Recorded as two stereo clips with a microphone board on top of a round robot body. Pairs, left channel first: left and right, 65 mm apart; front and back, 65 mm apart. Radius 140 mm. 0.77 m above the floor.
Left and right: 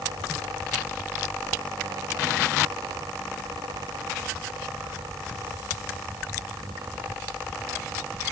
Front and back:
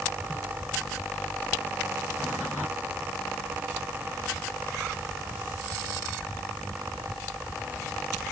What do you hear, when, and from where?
Only background noise.